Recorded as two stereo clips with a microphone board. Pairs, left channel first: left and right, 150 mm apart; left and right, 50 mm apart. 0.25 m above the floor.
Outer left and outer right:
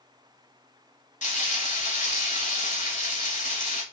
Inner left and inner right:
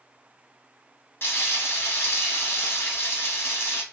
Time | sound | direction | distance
1.2 | frying | 55° left (ahead or behind) | 0.8 m